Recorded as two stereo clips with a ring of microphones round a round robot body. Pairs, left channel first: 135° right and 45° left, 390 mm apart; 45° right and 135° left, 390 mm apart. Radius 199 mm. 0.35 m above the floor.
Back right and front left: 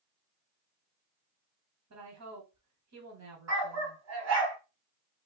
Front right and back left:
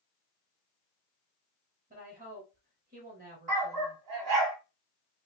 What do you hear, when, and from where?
1.9 s a woman speaking: 75° left, 1.6 m
3.5 s a dog barking: 95° left, 1.3 m